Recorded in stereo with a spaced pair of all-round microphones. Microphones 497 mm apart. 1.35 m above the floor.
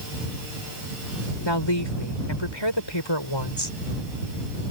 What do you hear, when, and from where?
1.4 s a woman speaking: 60° left (ahead or behind)